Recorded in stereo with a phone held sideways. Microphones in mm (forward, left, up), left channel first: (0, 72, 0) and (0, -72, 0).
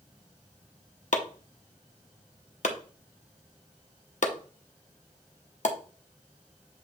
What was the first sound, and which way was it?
Chopping, 65° left (ahead or behind).